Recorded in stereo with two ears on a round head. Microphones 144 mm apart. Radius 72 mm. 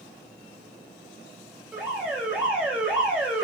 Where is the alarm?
10° right (ahead or behind), 4 m.